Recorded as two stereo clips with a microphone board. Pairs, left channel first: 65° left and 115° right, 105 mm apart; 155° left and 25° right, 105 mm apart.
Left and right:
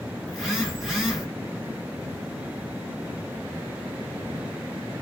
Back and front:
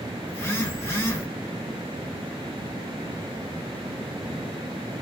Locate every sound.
0.3 s a phone buzzing: 160° left, 1.3 m